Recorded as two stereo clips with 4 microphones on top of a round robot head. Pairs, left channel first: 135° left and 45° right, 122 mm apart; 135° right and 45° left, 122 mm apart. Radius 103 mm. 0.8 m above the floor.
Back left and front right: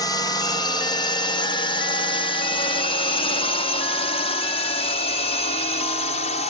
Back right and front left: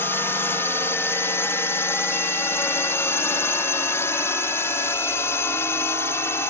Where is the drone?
165° left; by 6.5 s 155° left.